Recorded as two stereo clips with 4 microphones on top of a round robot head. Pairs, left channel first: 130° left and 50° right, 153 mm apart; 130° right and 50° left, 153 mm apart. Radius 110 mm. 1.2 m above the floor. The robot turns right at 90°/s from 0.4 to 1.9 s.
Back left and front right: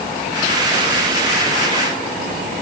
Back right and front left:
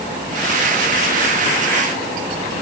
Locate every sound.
Only background noise.